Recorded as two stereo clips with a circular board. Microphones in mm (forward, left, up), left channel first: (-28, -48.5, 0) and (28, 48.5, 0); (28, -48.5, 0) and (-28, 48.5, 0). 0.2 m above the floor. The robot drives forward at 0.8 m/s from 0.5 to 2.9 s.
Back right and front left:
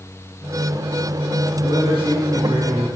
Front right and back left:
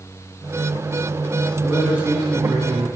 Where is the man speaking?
45° left, 2.5 m; by 2.9 s 80° left, 2.0 m.